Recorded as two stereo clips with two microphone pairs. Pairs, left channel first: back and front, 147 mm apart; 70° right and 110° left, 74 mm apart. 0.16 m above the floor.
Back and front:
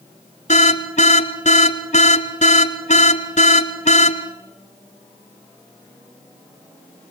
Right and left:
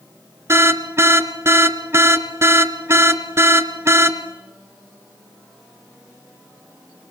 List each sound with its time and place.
0.5 s an alarm: 155° left, 1.9 m